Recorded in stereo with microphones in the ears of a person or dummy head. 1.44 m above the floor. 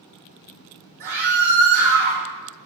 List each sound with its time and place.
1.0 s a scream: 50° right (ahead or behind), 3 m